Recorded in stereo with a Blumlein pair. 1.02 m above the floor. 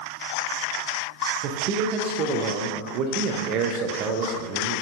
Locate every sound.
1.4 s a man speaking: 35° right, 0.6 m